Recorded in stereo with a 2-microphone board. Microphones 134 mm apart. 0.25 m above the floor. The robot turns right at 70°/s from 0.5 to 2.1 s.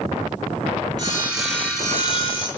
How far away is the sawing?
About 5 m.